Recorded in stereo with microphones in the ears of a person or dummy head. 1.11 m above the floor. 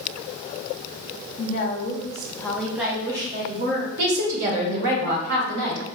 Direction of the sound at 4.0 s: 70° right (ahead or behind).